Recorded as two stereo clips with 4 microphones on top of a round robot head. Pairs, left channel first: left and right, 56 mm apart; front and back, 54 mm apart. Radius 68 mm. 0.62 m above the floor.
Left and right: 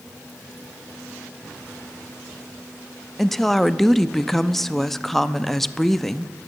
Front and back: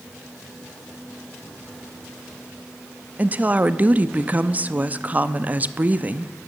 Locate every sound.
3.2 s a woman speaking: 170° left, 0.5 m